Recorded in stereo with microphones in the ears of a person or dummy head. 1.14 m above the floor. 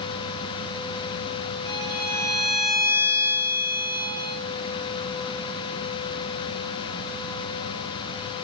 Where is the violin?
25° left (ahead or behind), 3 m.